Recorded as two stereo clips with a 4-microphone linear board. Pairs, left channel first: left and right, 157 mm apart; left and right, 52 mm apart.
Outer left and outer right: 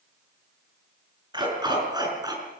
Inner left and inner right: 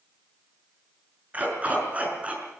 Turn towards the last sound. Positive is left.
turn(degrees=-25)  # may be behind; listen again after turning